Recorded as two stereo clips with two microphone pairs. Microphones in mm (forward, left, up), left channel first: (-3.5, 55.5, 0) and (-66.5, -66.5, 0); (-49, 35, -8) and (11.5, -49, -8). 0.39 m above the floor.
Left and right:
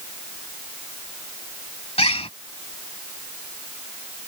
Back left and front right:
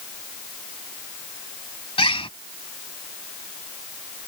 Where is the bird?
105° left.